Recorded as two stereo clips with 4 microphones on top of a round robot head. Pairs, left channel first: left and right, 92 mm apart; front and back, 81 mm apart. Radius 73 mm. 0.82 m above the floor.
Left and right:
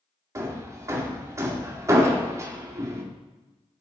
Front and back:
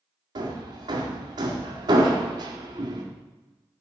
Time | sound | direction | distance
0.3 | hammering | 145° right | 2.0 m